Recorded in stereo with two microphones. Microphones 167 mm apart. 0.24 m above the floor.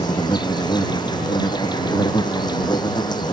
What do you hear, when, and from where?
0.0 s an insect: 25° left (ahead or behind)